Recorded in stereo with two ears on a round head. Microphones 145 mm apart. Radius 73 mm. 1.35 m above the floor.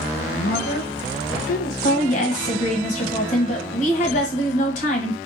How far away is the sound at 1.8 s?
About 1.1 m.